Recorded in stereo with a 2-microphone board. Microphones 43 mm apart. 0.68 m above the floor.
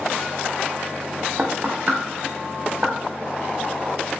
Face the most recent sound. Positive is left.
turn(degrees=-35)  # may be behind; listen again after turning